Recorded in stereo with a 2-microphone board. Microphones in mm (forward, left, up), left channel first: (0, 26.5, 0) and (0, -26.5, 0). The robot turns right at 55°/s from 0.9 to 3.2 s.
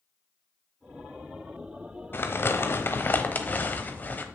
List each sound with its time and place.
2.1 s crumpling: 70° left, 0.9 m; by 4.2 s 125° left, 0.9 m